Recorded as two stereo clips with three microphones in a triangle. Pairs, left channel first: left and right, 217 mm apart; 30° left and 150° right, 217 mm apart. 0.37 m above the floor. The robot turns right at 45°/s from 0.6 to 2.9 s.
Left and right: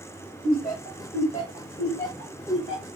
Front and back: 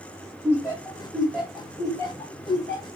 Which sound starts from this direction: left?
Laughter, at 0.4 s.